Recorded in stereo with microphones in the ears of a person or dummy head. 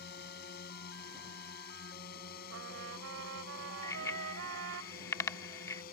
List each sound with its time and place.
0.0 s a drone: 60° left (ahead or behind); by 5.9 s 55° left (ahead or behind)
2.5 s a trumpet: 85° right
3.8 s a bicycle bell: 20° left (ahead or behind)